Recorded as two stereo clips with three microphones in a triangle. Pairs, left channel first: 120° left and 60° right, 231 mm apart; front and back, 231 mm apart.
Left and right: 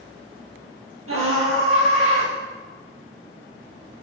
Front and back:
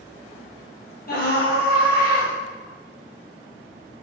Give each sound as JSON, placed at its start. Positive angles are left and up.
{"t": 1.1, "sound": "a scream", "azimuth_deg": -45, "distance_m": 4.0}